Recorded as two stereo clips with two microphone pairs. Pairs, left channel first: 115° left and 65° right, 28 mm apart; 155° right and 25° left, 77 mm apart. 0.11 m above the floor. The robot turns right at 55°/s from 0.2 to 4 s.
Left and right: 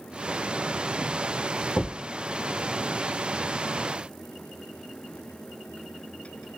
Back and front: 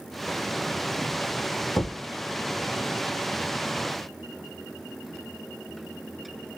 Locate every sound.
1.8 s a thud: 145° left, 1.6 m; by 2.0 s 160° left, 1.6 m